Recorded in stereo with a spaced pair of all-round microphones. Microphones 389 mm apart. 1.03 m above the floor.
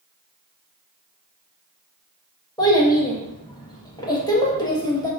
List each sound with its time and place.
2.6 s a child speaking: 10° left (ahead or behind), 0.7 m